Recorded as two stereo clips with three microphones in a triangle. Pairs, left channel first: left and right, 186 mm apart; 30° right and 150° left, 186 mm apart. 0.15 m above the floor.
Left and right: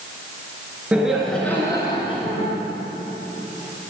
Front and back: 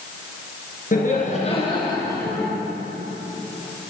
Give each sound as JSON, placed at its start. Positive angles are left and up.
{"t": 0.9, "sound": "laughter", "azimuth_deg": -10, "distance_m": 2.5}